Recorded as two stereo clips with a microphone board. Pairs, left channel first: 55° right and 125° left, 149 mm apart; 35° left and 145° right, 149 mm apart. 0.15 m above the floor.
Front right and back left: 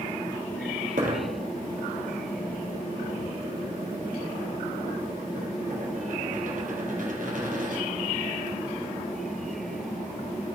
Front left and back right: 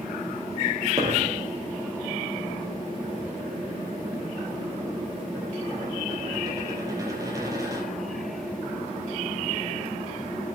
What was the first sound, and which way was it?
A dropped coin, 150° left.